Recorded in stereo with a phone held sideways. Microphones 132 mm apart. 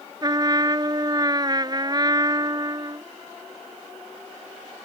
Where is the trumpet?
30° right (ahead or behind).